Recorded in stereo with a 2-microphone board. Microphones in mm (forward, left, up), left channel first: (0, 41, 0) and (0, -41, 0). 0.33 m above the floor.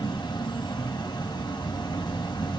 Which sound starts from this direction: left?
An insect, at 0.0 s.